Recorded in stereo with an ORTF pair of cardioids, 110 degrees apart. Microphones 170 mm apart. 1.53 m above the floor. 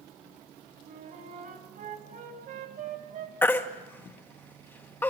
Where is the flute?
60° right, 3.5 m.